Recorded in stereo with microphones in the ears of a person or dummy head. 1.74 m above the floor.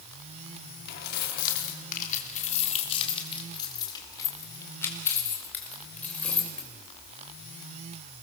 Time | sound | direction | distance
0.9 | keys jangling | 65° left (ahead or behind) | 3 m